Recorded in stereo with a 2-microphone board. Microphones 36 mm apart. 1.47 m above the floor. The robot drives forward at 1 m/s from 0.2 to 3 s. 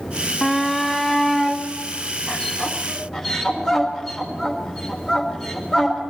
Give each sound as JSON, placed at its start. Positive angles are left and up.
{"t": 0.4, "sound": "a shout", "side_deg": 0, "distance_m": 0.6}